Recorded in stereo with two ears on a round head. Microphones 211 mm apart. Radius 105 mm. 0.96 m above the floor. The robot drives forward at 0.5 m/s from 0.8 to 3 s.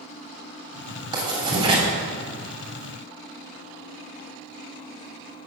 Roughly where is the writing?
Right.